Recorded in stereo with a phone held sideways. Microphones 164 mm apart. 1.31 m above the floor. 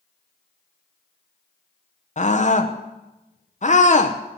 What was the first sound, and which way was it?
A scream, 50° left (ahead or behind).